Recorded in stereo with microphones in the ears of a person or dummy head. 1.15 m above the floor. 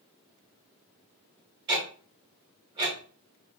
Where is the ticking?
30° right (ahead or behind), 1.3 m.